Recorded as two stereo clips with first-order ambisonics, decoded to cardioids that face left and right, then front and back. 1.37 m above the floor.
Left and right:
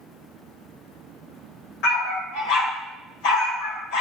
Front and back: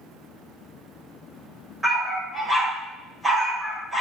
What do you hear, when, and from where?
1.8 s a dog barking: 95° left, 2.5 m